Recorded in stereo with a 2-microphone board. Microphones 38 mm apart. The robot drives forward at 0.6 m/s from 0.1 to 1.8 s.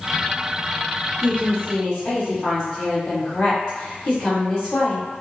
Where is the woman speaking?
35° left (ahead or behind), 1.4 m.